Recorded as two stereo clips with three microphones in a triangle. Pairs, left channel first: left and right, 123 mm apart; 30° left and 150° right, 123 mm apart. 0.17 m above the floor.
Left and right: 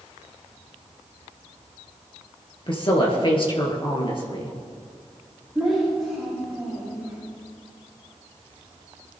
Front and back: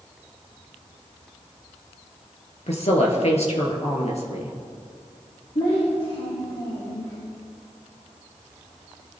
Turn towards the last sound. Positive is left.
turn(degrees=0)